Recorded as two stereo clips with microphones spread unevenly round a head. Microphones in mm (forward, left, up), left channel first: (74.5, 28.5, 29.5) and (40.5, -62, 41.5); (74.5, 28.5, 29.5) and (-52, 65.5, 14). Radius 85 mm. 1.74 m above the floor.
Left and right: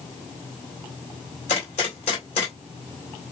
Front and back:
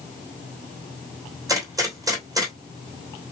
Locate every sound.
1.5 s a gunshot: 100° left, 2.5 m